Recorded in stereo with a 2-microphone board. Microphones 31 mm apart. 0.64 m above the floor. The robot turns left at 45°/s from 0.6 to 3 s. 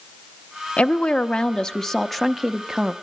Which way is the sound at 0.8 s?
75° left.